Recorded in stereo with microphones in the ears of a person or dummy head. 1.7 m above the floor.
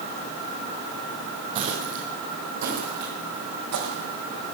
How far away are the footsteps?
About 2.5 m.